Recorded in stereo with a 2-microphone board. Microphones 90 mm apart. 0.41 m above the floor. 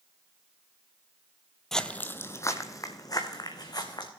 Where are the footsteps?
5° left (ahead or behind), 0.5 m; by 4.1 s 50° left (ahead or behind), 1.9 m.